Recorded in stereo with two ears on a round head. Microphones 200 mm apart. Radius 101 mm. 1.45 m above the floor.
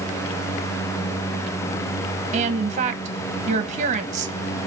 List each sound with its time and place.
2.3 s a woman speaking: 35° right (ahead or behind), 1.1 m